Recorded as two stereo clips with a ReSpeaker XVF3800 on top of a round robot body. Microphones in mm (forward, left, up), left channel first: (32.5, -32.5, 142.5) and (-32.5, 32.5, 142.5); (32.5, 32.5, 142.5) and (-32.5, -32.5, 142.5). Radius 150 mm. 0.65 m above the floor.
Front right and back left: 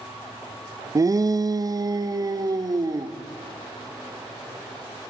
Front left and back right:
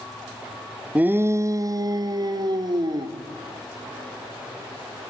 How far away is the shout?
About 0.6 m.